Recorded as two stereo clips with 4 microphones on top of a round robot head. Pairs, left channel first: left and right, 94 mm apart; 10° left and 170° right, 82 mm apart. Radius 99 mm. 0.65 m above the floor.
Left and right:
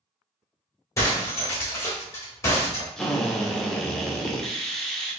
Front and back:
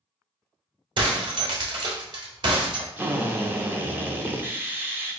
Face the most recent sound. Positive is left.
turn(degrees=170)